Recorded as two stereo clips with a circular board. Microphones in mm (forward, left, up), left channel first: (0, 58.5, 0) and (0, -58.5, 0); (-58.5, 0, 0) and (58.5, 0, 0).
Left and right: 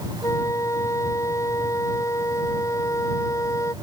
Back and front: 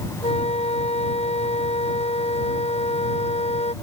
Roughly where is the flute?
Behind left.